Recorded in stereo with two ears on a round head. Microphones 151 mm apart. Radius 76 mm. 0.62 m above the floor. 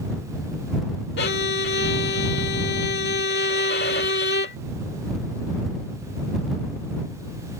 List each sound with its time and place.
1.2 s a violin: 75° left (ahead or behind)